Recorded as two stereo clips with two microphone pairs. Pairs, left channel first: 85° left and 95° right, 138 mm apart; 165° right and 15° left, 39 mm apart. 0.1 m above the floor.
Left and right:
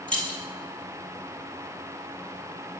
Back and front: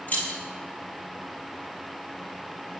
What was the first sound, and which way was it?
Keys jangling, 165° left.